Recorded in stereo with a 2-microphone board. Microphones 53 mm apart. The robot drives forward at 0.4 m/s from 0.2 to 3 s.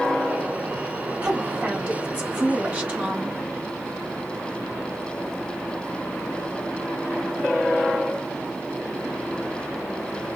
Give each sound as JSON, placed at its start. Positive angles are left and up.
{"t": 1.2, "sound": "a woman speaking", "side_deg": -20, "distance_m": 1.1}